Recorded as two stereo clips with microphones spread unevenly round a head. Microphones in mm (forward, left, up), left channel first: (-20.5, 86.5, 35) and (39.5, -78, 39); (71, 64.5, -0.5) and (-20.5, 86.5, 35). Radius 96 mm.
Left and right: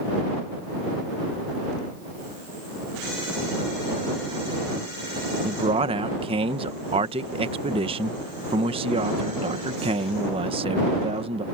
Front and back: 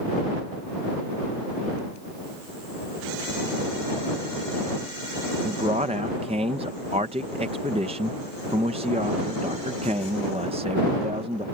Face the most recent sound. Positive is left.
turn(degrees=-130)